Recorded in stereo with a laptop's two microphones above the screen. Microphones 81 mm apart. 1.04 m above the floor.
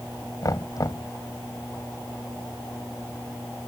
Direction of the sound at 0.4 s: 45° left (ahead or behind).